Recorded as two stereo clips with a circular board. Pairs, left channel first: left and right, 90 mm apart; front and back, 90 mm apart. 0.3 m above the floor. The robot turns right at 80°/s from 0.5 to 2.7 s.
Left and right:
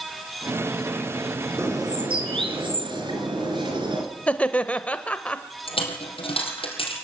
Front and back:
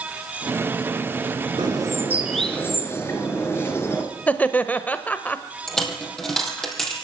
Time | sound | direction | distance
1.6 | a bird | 150° right | 3 m
4.3 | laughter | 40° left | 0.9 m
5.7 | a dropped coin | 85° left | 3.5 m